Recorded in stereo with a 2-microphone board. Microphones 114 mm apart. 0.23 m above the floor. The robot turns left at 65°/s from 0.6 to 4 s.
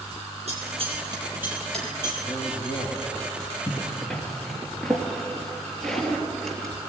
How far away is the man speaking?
About 2.5 m.